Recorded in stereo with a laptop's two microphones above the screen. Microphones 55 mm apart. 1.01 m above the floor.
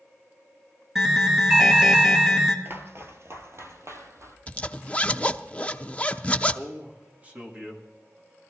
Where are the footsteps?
45° right (ahead or behind), 1.5 m; by 4.4 s 60° right (ahead or behind), 2.5 m.